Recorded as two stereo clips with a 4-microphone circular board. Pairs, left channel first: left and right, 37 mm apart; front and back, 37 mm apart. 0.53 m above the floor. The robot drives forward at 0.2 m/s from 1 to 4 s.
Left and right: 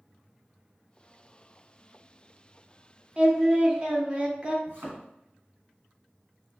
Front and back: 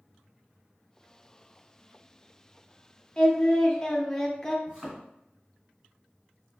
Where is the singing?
45° right, 0.7 m; by 4.6 s 70° right, 0.6 m.